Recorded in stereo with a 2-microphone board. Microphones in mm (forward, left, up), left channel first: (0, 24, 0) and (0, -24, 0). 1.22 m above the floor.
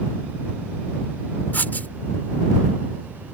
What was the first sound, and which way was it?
Writing, 40° left (ahead or behind).